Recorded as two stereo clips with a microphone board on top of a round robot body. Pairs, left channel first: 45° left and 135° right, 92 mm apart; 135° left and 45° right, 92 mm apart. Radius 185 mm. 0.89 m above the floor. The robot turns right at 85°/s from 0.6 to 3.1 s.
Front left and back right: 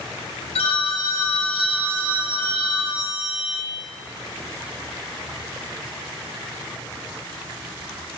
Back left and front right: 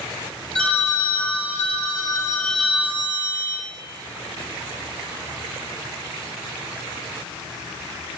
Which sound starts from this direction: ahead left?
A phone ringing, at 0.6 s.